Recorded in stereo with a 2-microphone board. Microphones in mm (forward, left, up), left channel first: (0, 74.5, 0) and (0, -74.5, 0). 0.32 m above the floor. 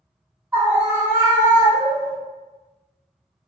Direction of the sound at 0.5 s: 10° right (ahead or behind).